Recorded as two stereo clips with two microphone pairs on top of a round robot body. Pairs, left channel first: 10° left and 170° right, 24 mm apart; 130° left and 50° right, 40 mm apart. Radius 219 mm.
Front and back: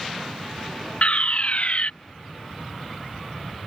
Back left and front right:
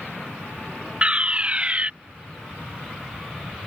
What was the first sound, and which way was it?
A fire alarm, straight ahead.